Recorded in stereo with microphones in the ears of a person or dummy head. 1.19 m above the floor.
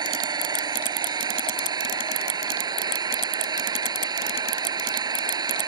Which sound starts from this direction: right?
An engine running, at 0.0 s.